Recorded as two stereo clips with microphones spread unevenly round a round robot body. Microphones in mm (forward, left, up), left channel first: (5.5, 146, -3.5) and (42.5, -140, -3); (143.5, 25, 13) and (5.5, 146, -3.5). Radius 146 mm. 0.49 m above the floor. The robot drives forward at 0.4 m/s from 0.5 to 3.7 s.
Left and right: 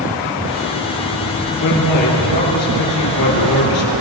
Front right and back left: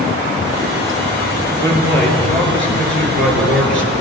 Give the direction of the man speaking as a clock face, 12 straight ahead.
8 o'clock.